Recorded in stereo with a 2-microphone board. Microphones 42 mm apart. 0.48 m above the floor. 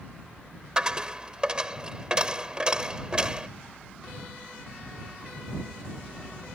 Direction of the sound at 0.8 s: 20° right (ahead or behind).